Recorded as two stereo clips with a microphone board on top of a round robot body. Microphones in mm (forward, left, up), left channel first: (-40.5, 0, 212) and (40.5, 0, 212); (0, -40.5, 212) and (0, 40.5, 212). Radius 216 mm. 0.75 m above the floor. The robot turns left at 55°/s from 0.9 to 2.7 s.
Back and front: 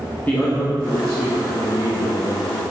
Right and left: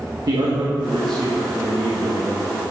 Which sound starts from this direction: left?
A man speaking, at 0.3 s.